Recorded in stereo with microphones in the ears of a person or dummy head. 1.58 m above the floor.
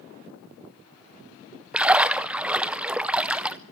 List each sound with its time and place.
1.7 s a splash: 5° right (ahead or behind), 0.6 m